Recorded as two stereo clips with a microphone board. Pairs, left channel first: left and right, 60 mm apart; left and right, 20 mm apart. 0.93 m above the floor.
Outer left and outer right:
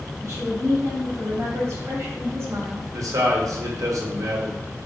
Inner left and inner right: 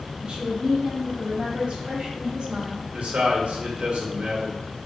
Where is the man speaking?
70° right (ahead or behind), 1.0 m.